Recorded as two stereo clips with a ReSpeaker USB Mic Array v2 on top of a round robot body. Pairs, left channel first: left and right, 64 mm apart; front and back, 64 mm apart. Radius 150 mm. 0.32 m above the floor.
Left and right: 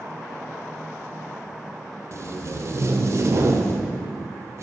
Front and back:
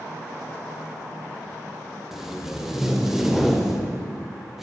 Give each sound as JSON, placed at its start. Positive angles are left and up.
{"t": 2.1, "sound": "tape being pulled", "azimuth_deg": -95, "distance_m": 1.8}